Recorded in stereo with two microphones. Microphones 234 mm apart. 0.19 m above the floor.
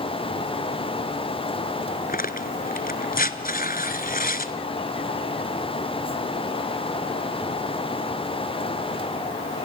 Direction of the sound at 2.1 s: 40° left (ahead or behind).